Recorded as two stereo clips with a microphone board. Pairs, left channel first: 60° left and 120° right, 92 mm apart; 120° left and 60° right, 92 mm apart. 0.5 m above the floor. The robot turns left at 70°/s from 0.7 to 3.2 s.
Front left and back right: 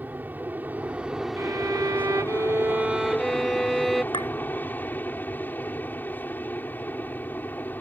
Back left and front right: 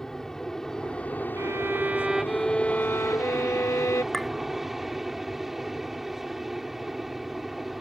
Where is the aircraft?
160° right; by 7.8 s 25° left.